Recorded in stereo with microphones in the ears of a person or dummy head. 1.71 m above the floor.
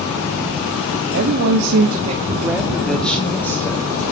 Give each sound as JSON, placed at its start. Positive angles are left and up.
{"t": 1.1, "sound": "a woman speaking", "side_deg": -55, "distance_m": 1.0}